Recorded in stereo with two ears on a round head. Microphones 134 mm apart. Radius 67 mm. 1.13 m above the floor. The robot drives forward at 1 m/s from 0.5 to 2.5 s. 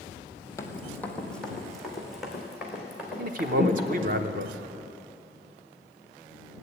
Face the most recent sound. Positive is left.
turn(degrees=-55)  # may be behind; listen again after turning